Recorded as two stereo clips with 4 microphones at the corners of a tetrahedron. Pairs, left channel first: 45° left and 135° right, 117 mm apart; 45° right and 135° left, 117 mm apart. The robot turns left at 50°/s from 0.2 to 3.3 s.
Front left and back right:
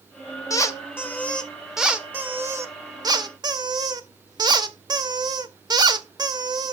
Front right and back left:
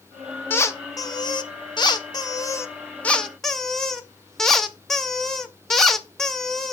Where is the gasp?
No gasp in this recording.